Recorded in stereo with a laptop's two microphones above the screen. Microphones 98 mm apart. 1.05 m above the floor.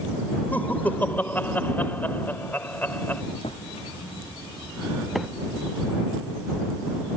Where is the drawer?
75° left (ahead or behind).